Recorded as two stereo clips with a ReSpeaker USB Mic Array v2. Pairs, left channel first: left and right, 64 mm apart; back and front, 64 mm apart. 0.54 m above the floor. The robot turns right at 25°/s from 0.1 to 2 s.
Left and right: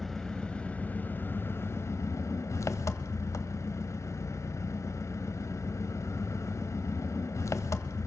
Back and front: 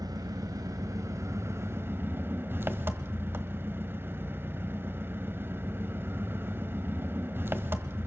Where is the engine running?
5° left, 0.9 m; by 8.1 s 55° left, 0.9 m.